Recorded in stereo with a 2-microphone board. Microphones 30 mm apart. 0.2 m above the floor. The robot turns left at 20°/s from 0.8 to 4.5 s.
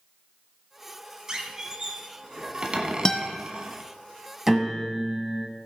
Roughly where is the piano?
Centre.